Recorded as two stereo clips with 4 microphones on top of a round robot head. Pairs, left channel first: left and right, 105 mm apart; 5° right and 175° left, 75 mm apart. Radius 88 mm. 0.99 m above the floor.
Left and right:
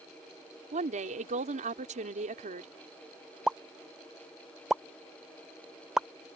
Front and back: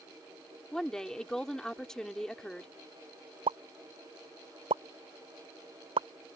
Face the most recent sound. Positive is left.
turn(degrees=-175)